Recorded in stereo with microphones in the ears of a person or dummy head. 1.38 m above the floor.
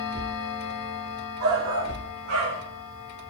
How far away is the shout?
About 6 m.